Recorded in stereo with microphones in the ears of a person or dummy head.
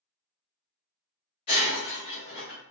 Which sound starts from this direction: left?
Breaking glass, at 1.5 s.